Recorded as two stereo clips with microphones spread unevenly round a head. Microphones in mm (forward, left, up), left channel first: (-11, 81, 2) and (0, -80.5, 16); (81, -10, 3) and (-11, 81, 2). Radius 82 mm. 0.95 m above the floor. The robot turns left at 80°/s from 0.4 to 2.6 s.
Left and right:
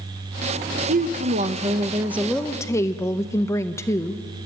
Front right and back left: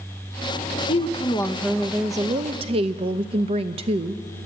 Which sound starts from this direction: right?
A woman speaking, at 0.9 s.